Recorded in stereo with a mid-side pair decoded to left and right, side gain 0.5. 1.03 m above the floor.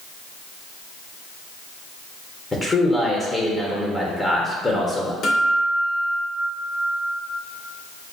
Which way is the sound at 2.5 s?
20° left.